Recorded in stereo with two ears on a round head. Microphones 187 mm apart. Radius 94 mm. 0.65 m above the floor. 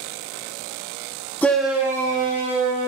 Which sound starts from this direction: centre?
A shout, at 1.4 s.